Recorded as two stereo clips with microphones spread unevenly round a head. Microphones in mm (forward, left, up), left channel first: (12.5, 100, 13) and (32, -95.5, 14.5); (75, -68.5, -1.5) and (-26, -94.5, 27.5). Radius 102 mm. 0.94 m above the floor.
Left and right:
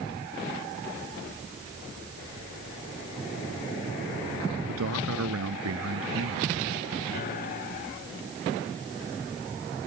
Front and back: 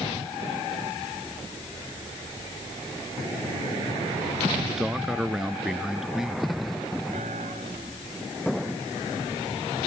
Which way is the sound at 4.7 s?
80° right.